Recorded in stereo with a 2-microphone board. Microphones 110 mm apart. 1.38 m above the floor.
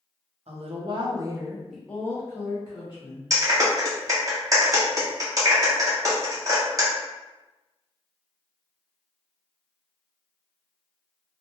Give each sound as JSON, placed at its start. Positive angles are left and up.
{"t": 0.5, "sound": "a woman speaking", "side_deg": -65, "distance_m": 0.7}
{"t": 3.3, "sound": "a clap", "side_deg": -30, "distance_m": 0.9}